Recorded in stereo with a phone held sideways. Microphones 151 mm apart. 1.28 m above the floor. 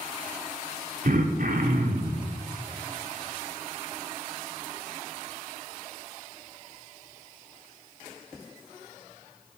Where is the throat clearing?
65° right (ahead or behind), 0.8 m.